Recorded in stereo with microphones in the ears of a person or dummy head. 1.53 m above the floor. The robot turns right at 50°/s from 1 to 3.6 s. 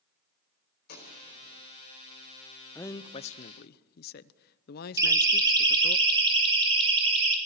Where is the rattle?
No rattle in this recording.